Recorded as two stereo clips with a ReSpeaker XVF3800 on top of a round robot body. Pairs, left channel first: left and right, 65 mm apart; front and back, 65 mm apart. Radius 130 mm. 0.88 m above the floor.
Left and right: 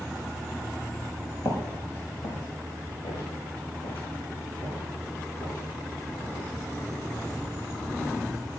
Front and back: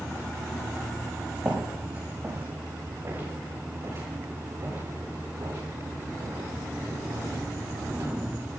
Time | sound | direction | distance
1.4 | footsteps | 115° left | 4 m